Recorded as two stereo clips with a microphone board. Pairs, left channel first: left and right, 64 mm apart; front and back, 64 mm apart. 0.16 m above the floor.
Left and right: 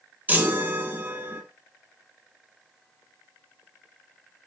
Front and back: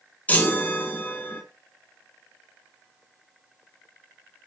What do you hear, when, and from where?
0.3 s a chime: 50° right, 1.7 m